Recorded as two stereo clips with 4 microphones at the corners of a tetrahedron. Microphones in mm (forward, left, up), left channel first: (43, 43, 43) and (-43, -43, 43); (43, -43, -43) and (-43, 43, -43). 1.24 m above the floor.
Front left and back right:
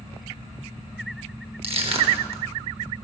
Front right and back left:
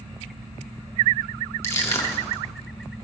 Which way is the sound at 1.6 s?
110° right.